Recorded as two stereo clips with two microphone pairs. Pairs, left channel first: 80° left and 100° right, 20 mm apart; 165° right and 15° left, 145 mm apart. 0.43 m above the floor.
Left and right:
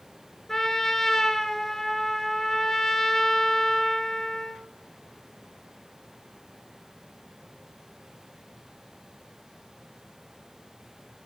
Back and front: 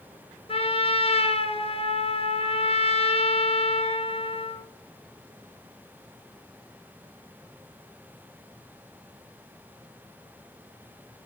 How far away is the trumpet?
About 1.2 m.